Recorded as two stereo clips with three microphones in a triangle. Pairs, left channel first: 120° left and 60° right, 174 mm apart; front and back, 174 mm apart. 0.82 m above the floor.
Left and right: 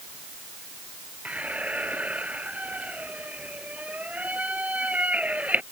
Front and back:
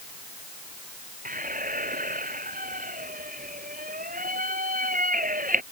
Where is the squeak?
140° right.